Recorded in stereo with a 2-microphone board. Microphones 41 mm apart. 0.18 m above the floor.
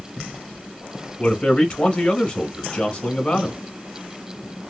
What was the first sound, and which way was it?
A man speaking, 30° left (ahead or behind).